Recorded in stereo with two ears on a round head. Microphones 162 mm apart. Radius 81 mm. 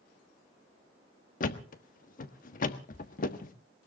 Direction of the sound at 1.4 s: 50° left (ahead or behind).